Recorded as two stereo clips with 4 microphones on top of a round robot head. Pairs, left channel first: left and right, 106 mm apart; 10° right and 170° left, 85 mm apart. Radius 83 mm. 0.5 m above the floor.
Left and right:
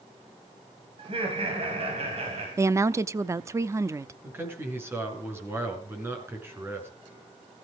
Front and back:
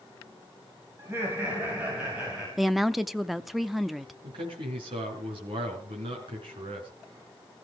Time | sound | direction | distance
1.0 | laughter | 120° right | 4 m
2.6 | a woman speaking | 100° right | 0.7 m
4.2 | a man speaking | 160° right | 5.5 m